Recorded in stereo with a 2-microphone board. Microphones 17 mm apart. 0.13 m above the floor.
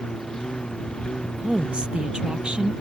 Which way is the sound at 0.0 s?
55° left (ahead or behind).